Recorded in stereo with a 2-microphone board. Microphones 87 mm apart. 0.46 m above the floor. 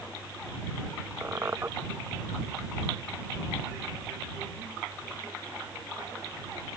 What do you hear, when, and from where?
1.2 s a squeak: 30° right (ahead or behind)